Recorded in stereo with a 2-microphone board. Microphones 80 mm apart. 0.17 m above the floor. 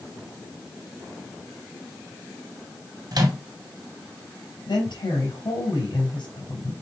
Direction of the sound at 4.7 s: 65° left (ahead or behind).